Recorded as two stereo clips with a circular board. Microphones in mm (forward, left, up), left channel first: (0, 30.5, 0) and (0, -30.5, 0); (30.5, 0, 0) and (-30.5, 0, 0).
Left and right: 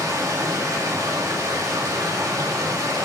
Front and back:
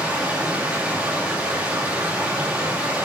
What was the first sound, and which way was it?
Running water, 110° right.